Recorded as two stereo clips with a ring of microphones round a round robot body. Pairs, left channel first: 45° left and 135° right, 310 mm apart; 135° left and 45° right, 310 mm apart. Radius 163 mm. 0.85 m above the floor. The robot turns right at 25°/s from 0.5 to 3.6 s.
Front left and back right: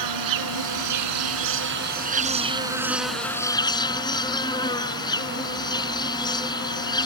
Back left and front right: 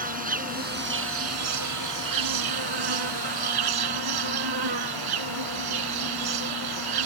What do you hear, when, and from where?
0.0 s an insect: 110° right; by 7.1 s 30° right